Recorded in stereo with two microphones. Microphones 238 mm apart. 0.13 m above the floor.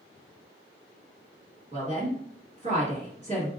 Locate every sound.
1.7 s a woman speaking: 30° right (ahead or behind), 1.7 m